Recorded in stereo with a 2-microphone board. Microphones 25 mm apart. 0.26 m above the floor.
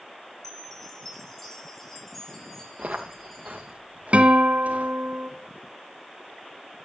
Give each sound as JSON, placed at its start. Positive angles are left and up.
{"t": 0.4, "sound": "a chime", "side_deg": 20, "distance_m": 4.0}
{"t": 2.8, "sound": "footsteps", "side_deg": -65, "distance_m": 3.5}
{"t": 4.1, "sound": "a guitar", "side_deg": -60, "distance_m": 2.5}